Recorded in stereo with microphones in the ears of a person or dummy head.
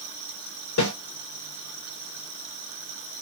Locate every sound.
0.8 s a snare drum: 80° left, 2.5 m